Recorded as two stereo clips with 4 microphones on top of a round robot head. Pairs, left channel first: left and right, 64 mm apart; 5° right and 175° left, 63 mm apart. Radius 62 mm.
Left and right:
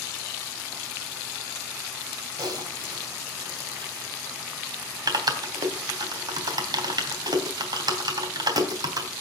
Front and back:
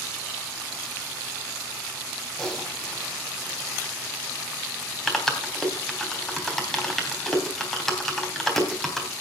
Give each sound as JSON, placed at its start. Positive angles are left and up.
{"t": 2.4, "sound": "typing on a keyboard", "azimuth_deg": -95, "distance_m": 3.0}